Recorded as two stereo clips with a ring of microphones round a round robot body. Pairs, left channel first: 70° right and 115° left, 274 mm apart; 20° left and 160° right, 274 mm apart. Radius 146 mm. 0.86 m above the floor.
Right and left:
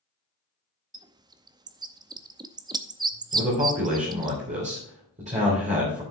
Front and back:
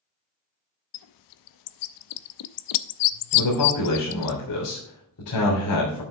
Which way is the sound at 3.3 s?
45° left.